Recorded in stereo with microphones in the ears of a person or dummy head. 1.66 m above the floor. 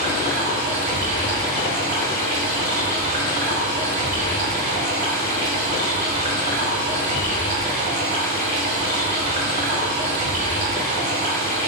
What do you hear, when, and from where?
0.0 s running water: 40° right (ahead or behind), 2.5 m